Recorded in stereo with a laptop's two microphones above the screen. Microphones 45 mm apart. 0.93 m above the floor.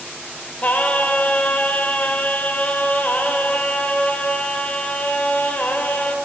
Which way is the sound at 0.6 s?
35° left (ahead or behind).